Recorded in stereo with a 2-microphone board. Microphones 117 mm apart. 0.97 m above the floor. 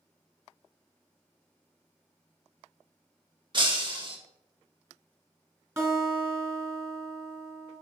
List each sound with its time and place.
3.5 s breaking glass: 40° right (ahead or behind), 1.3 m
5.8 s a guitar: 20° right (ahead or behind), 3 m